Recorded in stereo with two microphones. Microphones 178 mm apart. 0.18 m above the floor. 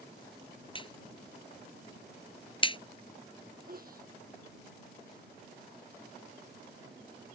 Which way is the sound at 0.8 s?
30° left (ahead or behind).